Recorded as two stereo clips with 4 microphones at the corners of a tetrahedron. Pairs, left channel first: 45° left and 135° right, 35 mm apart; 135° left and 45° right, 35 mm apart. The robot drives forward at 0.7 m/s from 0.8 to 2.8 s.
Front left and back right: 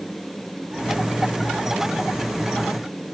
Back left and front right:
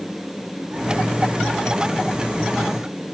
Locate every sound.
Only background noise.